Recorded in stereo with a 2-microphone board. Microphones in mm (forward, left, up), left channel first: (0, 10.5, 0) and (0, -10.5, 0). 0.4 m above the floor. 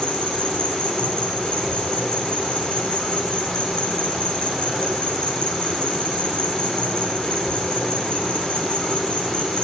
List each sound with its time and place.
0.0 s an insect: 50° left (ahead or behind), 5.5 m